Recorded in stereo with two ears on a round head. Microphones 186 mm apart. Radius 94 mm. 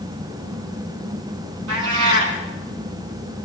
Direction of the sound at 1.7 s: 70° right (ahead or behind).